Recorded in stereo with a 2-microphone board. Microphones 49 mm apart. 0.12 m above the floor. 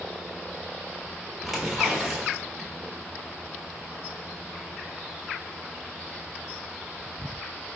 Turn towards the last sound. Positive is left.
turn(degrees=0)  # may be behind; listen again after turning